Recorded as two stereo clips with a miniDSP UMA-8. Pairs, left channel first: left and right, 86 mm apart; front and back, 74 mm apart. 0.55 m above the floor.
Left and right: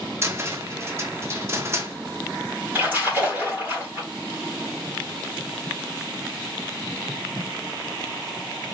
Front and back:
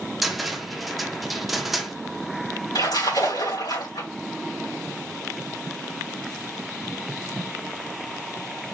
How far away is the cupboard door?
About 0.9 m.